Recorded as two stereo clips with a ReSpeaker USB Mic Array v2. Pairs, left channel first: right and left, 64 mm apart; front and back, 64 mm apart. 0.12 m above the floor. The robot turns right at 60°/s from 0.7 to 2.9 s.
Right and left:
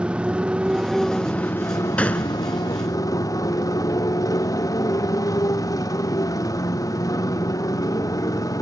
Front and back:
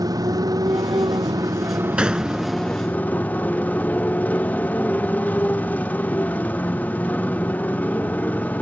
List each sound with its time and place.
0.0 s a motorcycle: 165° left; by 8.6 s 65° right
2.0 s a gunshot: 125° right; by 2.4 s 105° right